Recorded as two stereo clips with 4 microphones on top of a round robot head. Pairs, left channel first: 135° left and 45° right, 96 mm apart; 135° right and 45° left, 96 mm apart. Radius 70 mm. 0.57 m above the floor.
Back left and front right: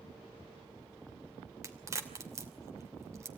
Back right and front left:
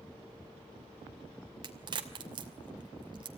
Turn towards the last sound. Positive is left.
turn(degrees=10)